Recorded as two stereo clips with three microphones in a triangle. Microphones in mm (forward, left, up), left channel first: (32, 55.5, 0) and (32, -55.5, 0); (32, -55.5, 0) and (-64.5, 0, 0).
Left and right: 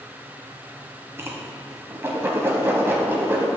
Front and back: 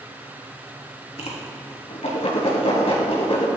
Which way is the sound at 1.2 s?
25° right.